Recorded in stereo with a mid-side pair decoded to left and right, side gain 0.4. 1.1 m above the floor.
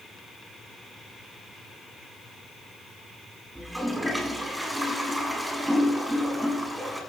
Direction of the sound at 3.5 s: 10° right.